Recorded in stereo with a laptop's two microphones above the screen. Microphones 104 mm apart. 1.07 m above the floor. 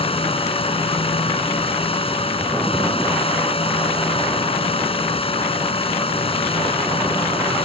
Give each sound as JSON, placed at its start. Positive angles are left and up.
{"t": 0.0, "sound": "a fan", "side_deg": 65}